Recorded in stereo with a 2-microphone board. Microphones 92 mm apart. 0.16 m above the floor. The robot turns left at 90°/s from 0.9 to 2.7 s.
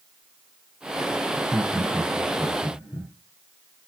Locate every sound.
1.3 s laughter: 40° right (ahead or behind), 5.5 m; by 3.1 s 75° left (ahead or behind), 5.5 m